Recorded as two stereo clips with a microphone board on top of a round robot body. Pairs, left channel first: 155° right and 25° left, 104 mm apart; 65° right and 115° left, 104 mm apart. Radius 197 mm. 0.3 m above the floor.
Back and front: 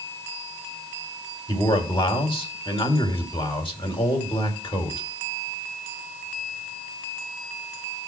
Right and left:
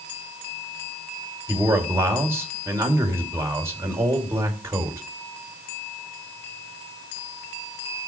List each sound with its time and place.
1.5 s a man speaking: 175° left, 3.5 m